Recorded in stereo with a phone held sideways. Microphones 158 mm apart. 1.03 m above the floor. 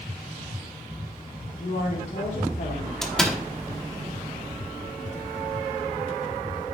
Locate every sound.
1.6 s a woman speaking: 60° left (ahead or behind), 3 m
3.0 s a door slam: 5° left (ahead or behind), 1.1 m